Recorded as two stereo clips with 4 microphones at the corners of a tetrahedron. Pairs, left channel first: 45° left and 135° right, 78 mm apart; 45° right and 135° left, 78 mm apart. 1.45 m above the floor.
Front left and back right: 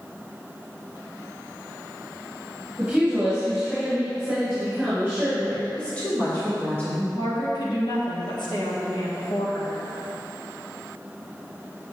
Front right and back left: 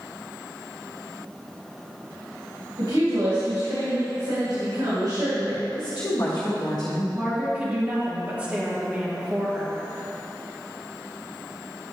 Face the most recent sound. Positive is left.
turn(degrees=60)